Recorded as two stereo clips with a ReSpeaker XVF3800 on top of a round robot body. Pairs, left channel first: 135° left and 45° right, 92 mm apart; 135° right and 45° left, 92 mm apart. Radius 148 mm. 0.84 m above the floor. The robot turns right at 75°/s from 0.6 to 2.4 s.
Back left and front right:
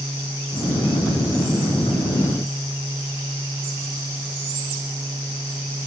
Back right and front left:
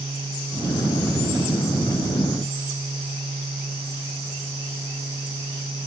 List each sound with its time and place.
Only background noise.